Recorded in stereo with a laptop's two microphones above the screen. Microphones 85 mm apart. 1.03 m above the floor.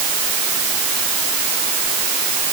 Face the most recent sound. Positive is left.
No sound to turn to.